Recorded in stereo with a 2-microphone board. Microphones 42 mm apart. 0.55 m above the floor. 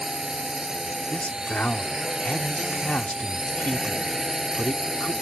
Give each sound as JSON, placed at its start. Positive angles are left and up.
{"t": 0.0, "sound": "a drone", "side_deg": -15}
{"t": 1.1, "sound": "a man speaking", "side_deg": 45}